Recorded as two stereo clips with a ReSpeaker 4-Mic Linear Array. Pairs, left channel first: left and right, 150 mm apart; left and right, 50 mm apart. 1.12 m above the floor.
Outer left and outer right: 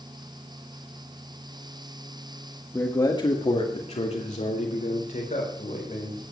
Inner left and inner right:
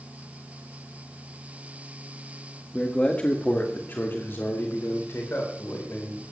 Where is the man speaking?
15° left (ahead or behind), 1.3 m; by 6.2 s 65° left (ahead or behind), 4.5 m.